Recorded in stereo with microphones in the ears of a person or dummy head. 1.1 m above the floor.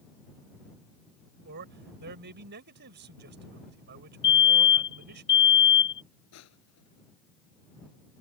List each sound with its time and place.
1.4 s a man speaking: 50° right (ahead or behind)
4.2 s a fire alarm: 20° left (ahead or behind)
6.3 s crushing: 85° left